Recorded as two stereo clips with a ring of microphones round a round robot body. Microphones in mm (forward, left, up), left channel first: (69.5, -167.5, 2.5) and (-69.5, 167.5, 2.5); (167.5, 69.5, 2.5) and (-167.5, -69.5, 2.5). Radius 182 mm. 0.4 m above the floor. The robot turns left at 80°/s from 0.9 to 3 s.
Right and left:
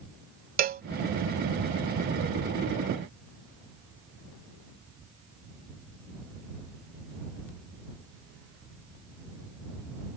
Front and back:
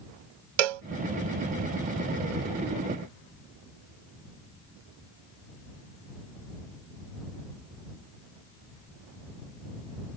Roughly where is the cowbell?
Behind.